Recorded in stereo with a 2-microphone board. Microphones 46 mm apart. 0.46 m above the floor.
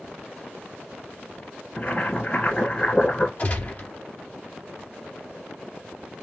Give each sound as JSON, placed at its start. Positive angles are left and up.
{"t": 1.8, "sound": "boiling", "side_deg": 30, "distance_m": 1.8}
{"t": 3.4, "sound": "a gunshot", "side_deg": 35, "distance_m": 2.5}